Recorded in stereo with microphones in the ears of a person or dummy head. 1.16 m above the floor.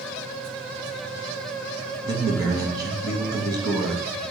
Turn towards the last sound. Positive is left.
turn(degrees=-15)  # may be behind; listen again after turning